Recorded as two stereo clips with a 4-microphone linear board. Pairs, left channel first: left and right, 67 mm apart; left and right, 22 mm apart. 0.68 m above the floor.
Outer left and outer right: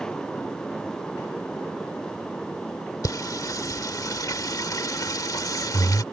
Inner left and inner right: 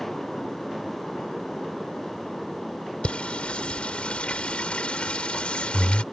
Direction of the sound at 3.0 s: 65° left (ahead or behind).